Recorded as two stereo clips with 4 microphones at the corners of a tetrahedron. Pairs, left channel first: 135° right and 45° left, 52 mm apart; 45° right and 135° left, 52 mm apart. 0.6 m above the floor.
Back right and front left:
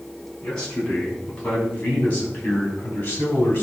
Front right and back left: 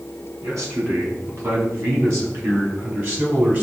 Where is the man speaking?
150° left, 5 m; by 3.6 s straight behind, 4 m.